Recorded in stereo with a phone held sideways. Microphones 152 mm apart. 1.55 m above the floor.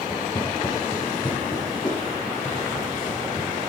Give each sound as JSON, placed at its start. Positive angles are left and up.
{"t": 0.1, "sound": "footsteps", "side_deg": 30, "distance_m": 2.0}